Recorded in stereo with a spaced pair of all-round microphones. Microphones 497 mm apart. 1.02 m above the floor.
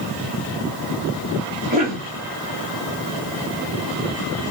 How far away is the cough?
About 2.5 m.